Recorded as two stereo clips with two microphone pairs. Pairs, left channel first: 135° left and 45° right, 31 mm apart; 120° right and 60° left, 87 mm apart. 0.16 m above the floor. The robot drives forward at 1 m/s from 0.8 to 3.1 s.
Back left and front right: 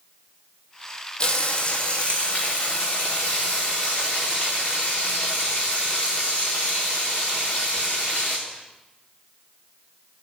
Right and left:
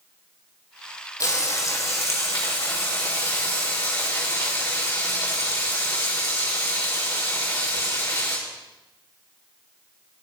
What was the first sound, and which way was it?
Frying, 170° right.